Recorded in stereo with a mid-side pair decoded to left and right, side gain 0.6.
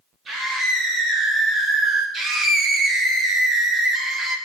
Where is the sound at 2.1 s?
45° right, 5 m.